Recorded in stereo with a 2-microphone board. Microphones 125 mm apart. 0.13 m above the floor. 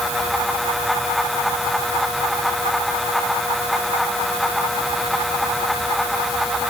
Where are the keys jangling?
I don't hear keys jangling.